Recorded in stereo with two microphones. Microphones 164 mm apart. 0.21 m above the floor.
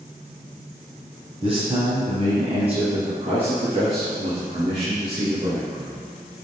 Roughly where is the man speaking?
Right.